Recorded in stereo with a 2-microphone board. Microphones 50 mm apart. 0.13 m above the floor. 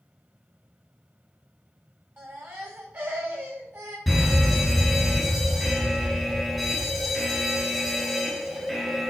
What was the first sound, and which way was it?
A baby crying, 40° right (ahead or behind).